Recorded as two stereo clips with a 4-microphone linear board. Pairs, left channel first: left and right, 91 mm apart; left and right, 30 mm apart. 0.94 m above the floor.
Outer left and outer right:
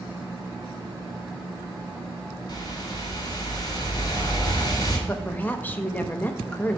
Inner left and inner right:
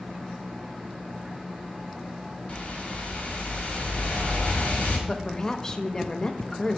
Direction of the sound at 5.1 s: 20° left (ahead or behind).